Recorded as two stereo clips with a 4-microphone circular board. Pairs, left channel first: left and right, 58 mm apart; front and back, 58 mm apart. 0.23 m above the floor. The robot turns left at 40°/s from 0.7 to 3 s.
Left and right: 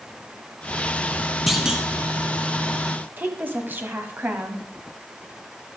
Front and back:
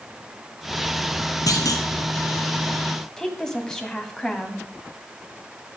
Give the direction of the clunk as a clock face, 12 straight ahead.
12 o'clock.